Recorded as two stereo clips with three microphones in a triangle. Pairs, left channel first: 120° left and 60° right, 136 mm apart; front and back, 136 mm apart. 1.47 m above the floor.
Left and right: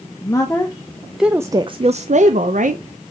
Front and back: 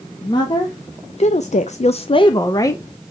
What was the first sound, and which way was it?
A woman speaking, 55° left.